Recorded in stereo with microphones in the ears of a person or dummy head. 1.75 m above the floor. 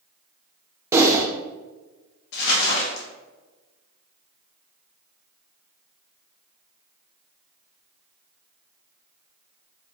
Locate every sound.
0.9 s typing on a keyboard: 15° right (ahead or behind), 0.5 m
2.3 s crumpling: 60° left (ahead or behind), 1.0 m